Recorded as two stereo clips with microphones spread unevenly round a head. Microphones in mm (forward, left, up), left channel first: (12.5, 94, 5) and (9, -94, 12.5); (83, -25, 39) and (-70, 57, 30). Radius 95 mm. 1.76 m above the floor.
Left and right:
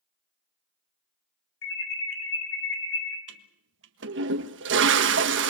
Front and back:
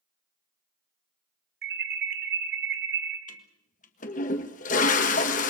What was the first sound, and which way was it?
An alarm, 120° left.